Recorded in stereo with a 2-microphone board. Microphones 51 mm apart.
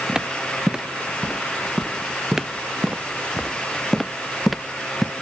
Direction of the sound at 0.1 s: 15° right (ahead or behind).